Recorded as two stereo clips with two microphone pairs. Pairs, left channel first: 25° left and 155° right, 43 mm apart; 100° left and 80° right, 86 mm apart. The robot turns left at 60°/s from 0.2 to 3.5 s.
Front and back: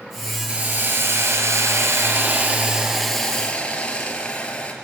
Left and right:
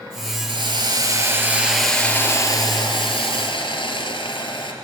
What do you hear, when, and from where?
0.5 s a hiss: 90° right, 3.5 m; by 4.7 s 90° left, 3.5 m